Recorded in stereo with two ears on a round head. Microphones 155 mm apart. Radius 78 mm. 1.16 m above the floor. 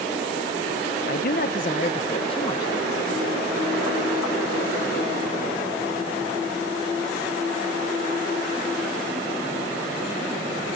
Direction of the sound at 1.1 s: 60° left (ahead or behind).